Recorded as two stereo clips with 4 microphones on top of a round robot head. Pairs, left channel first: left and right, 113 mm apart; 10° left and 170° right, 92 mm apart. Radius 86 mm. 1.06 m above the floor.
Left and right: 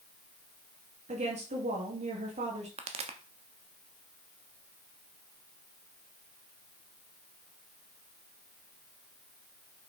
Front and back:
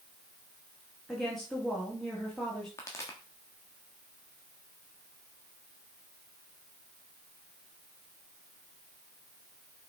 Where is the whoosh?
No whoosh in this recording.